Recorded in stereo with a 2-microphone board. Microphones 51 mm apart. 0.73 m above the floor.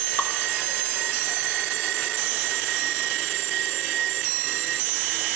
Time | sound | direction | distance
0.2 | dripping | 40° left (ahead or behind) | 1.9 m